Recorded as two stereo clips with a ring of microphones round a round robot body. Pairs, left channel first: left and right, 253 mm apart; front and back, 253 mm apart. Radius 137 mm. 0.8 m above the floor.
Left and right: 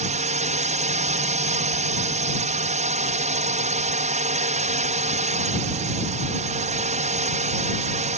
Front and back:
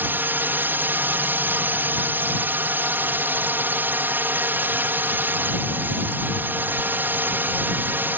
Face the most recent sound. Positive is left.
turn(degrees=-105)